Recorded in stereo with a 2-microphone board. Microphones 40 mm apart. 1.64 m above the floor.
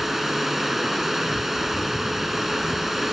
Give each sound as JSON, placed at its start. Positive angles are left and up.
{"t": 0.0, "sound": "running water", "side_deg": -5}